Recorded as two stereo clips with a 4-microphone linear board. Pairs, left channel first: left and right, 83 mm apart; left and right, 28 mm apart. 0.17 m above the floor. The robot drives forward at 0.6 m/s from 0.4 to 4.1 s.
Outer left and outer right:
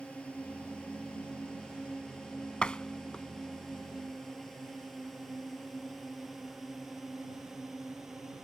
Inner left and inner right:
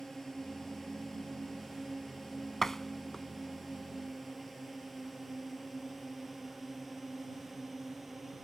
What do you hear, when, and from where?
0.0 s a drone: 15° left (ahead or behind); by 8.4 s 5° right (ahead or behind)
2.6 s a door slam: 15° left (ahead or behind); by 3.3 s 10° left (ahead or behind)